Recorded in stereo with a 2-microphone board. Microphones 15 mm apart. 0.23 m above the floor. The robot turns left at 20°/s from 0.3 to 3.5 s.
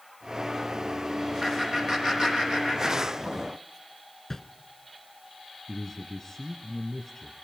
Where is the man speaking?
25° left (ahead or behind), 3 m.